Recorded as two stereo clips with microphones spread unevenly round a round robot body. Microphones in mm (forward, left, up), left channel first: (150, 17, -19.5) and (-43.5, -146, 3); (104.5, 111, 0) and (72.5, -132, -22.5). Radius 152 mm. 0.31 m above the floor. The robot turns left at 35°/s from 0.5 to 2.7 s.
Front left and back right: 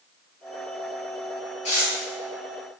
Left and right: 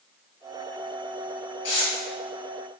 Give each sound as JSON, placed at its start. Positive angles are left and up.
{"t": 1.6, "sound": "tearing paper", "azimuth_deg": 60, "distance_m": 1.2}